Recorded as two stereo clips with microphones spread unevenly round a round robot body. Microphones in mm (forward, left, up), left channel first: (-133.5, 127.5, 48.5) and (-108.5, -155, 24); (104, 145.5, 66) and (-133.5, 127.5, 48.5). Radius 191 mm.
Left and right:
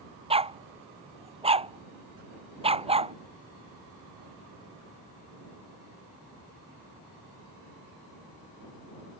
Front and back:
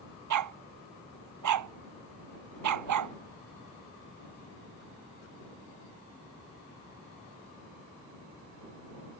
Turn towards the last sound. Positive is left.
turn(degrees=-155)